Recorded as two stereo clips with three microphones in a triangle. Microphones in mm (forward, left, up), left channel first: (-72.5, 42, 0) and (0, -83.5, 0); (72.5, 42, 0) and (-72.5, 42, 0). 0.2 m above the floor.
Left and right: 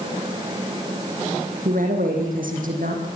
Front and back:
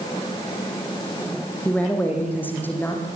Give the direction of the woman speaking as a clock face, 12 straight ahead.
3 o'clock.